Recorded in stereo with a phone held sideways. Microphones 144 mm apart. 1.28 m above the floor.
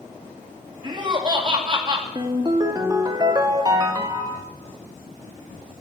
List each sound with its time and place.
0.8 s laughter: 35° right (ahead or behind), 2.5 m
2.1 s a ringtone: 30° right (ahead or behind), 1.4 m